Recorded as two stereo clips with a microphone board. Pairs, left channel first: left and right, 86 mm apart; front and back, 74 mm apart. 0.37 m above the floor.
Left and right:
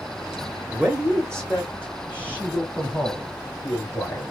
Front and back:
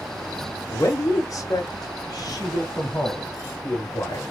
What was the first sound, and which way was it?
A man speaking, 10° right.